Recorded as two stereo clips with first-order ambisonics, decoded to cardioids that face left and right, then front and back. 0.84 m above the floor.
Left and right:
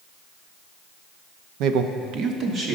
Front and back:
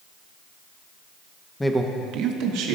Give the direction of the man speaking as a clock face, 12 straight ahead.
3 o'clock.